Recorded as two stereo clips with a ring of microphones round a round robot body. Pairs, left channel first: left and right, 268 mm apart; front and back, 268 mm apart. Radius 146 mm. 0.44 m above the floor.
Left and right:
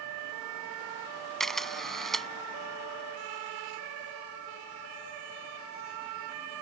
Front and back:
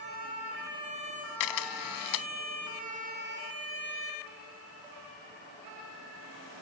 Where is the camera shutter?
Straight ahead.